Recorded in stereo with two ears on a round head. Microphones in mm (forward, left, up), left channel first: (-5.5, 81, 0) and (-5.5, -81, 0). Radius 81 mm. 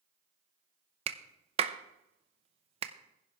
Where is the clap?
35° right (ahead or behind), 0.8 m.